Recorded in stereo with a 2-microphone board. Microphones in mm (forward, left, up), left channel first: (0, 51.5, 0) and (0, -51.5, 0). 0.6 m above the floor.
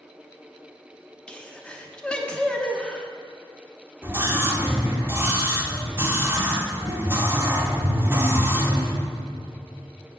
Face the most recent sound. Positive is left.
turn(degrees=-20)  # may be behind; listen again after turning